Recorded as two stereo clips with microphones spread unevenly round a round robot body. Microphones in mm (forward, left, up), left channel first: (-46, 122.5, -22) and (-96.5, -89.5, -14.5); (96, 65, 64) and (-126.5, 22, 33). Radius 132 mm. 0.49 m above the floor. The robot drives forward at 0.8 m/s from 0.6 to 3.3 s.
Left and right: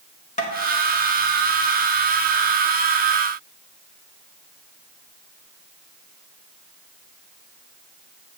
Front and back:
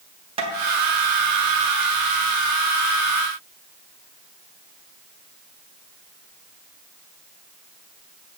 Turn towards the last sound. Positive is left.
turn(degrees=160)